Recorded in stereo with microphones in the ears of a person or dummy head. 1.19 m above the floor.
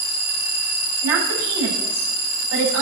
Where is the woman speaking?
80° right, 9 m.